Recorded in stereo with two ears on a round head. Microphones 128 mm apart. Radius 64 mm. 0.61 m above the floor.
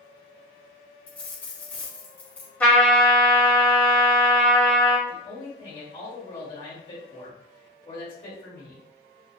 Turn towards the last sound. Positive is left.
turn(degrees=35)  # may be behind; listen again after turning